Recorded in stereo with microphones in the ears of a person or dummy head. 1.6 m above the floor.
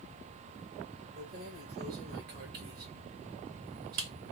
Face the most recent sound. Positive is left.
turn(degrees=-50)  # may be behind; listen again after turning